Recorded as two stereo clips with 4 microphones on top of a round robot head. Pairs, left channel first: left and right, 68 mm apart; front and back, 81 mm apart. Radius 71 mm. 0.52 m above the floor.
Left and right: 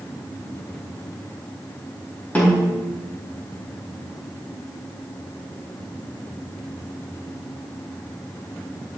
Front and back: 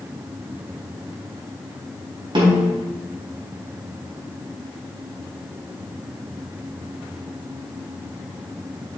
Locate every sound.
2.4 s a snare drum: 155° left, 4.5 m